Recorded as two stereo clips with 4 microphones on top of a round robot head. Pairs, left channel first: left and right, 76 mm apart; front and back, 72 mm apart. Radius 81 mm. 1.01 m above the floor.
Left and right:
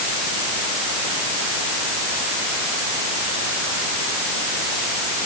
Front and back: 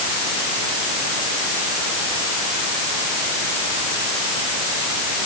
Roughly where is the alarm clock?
I don't hear an alarm clock.